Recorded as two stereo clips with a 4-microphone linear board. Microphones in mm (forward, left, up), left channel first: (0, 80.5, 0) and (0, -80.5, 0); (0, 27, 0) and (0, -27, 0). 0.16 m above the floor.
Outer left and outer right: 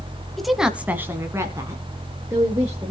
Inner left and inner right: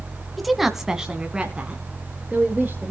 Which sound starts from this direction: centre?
A woman speaking, at 0.4 s.